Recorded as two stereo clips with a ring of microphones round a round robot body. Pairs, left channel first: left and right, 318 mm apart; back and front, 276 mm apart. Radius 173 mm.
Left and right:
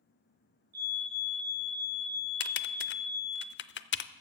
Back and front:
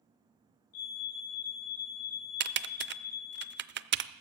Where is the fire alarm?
150° right, 6 m.